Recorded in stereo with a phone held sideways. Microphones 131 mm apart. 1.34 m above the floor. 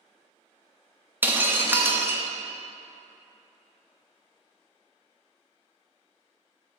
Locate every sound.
1.2 s breaking glass: 15° right (ahead or behind), 0.7 m